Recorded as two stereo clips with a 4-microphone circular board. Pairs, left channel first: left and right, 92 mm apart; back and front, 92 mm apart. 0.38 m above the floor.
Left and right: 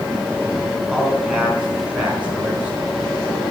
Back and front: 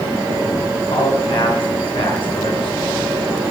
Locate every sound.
0.7 s a man speaking: 175° right, 3.5 m; by 2.9 s 165° right, 5 m